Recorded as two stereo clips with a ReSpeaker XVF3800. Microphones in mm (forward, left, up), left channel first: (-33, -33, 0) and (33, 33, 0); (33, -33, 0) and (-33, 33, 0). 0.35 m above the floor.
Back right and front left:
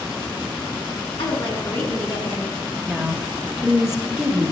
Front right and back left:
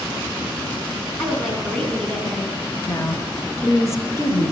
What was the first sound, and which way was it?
A woman speaking, 125° right.